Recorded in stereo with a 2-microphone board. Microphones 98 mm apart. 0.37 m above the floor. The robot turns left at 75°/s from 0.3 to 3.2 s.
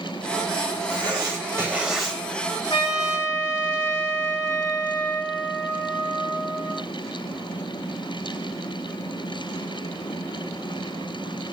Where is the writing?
95° right, 1.7 m; by 2.2 s 170° left, 1.7 m.